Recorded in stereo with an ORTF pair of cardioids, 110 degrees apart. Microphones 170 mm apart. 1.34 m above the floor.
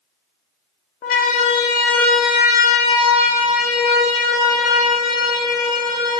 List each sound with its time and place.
1.0 s a siren: 60° left, 2.5 m